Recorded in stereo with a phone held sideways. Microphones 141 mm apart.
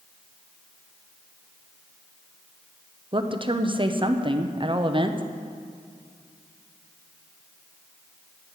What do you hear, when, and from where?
3.1 s a woman speaking: 35° right (ahead or behind), 0.8 m